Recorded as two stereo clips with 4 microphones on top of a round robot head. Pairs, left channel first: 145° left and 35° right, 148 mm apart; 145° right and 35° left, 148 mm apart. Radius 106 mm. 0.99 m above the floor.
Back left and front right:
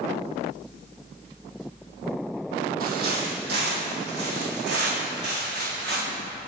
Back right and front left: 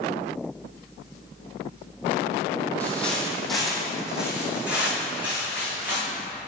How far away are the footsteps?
About 1.6 m.